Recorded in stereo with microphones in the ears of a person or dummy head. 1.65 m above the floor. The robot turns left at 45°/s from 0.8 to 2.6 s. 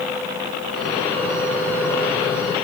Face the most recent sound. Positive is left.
No sound to turn to.